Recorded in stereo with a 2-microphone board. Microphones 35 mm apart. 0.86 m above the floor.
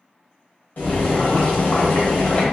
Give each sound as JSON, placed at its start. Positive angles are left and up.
{"t": 0.8, "sound": "boiling", "side_deg": 60, "distance_m": 1.0}